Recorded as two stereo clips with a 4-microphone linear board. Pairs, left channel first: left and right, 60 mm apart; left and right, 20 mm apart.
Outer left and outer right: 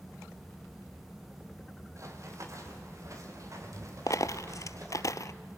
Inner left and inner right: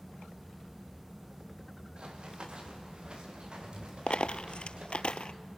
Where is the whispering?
I don't hear whispering.